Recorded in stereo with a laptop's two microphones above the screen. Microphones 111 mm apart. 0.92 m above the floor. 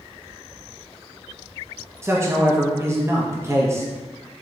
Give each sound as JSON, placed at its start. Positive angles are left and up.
{"t": 2.0, "sound": "a man speaking", "side_deg": -25, "distance_m": 0.7}